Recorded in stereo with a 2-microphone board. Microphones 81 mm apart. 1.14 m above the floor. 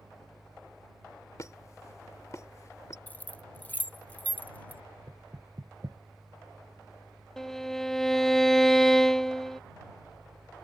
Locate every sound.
1.4 s a squeak: 40° left (ahead or behind)
3.1 s keys jangling: 20° left (ahead or behind)
5.1 s knocking: 50° right (ahead or behind)
7.4 s a violin: 5° left (ahead or behind)